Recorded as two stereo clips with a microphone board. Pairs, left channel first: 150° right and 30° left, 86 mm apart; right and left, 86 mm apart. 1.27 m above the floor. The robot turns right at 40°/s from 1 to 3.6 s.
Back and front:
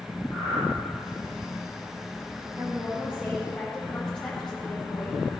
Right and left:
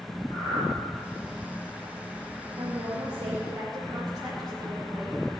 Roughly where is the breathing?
Right.